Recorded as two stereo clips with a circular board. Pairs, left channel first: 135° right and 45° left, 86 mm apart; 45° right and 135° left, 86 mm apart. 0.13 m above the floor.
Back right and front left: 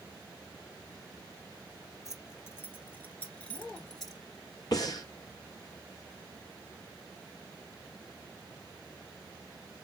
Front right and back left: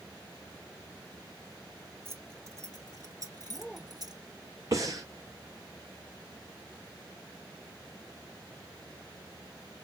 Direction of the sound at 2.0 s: 175° right.